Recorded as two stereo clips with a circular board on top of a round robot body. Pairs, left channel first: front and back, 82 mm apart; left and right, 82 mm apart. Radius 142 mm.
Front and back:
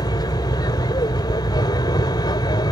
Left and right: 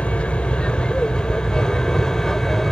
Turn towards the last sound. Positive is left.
turn(degrees=5)